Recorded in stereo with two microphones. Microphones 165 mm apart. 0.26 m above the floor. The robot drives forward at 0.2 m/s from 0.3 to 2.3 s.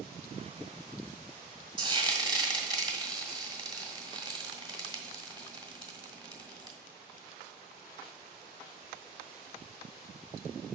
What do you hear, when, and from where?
1.8 s frying: 25° right (ahead or behind), 1.5 m; by 6.8 s 30° right (ahead or behind), 1.4 m